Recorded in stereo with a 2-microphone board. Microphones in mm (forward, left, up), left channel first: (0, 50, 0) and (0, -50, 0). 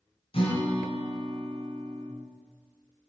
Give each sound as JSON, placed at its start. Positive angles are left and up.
{"t": 0.3, "sound": "a guitar", "side_deg": 70, "distance_m": 3.0}